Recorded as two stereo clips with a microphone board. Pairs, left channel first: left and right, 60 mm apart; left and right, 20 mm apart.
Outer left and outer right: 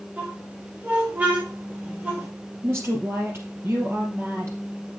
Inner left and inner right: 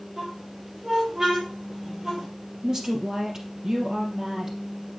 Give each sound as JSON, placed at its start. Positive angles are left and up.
{"t": 0.2, "sound": "a squeak", "side_deg": -25, "distance_m": 4.0}
{"t": 2.6, "sound": "a woman speaking", "side_deg": -45, "distance_m": 3.0}